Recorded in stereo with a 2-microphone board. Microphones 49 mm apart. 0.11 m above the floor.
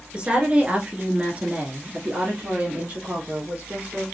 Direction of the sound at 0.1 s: 20° right (ahead or behind).